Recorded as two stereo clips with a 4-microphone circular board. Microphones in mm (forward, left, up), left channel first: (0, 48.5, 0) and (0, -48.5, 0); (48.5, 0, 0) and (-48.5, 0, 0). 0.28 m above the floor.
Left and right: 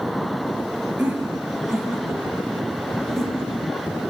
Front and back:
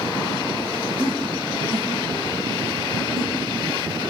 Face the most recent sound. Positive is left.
turn(degrees=175)